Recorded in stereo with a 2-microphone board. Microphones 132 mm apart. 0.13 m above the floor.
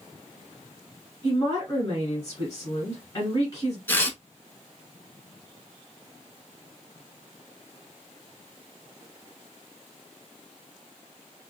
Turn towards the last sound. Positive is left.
turn(degrees=15)  # may be behind; listen again after turning